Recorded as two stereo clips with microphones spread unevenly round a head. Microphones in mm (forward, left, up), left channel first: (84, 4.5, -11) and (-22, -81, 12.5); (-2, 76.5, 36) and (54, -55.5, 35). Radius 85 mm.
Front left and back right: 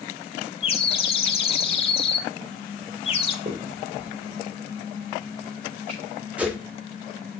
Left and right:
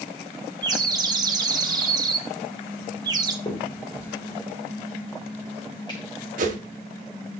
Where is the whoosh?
55° right, 1.3 m.